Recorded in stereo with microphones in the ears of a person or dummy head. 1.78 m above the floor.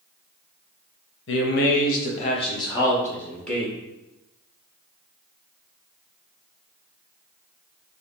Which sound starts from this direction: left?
A man speaking, at 1.3 s.